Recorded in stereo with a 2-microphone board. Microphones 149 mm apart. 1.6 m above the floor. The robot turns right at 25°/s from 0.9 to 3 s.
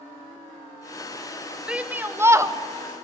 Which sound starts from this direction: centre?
A shout, at 1.7 s.